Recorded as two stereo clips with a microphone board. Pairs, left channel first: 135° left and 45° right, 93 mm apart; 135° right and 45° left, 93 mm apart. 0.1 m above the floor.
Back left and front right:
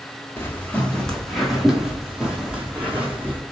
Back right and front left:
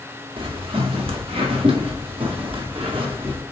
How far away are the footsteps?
About 1.0 m.